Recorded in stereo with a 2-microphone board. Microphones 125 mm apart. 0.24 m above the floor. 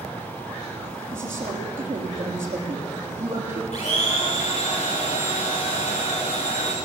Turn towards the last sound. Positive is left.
turn(degrees=65)  # may be behind; listen again after turning